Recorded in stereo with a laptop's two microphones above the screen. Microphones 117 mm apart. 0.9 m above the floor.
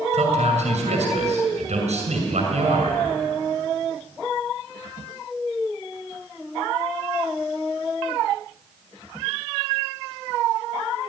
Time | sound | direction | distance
0.1 | a man speaking | 75° right (ahead or behind) | 6 m